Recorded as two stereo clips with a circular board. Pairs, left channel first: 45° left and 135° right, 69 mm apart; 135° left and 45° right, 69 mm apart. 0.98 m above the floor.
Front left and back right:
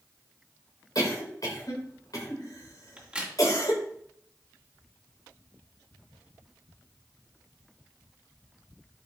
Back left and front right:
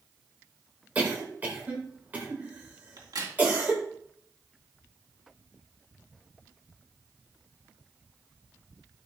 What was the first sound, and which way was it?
A cough, 20° left.